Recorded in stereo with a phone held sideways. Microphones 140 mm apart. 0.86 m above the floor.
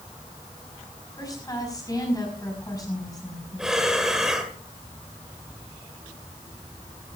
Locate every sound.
1.2 s a woman speaking: 25° left (ahead or behind), 5 m
3.6 s breathing: 5° right (ahead or behind), 1.8 m